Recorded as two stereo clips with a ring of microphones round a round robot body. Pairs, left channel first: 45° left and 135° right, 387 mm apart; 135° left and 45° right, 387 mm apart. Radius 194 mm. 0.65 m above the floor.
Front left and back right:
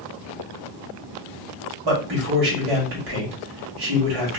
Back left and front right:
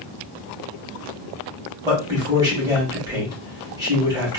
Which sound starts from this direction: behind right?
A man speaking, at 1.8 s.